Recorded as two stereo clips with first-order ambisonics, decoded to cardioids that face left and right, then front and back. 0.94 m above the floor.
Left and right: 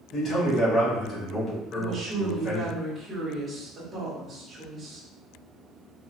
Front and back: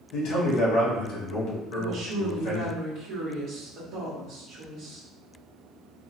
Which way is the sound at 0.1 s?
30° left.